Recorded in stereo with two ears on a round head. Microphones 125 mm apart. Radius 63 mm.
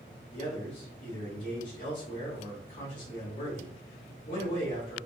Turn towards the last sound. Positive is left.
turn(degrees=60)  # may be behind; listen again after turning